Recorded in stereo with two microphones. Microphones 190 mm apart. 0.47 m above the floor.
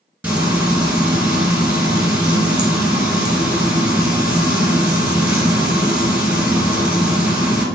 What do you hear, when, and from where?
0.2 s frying: 10° right (ahead or behind), 1.6 m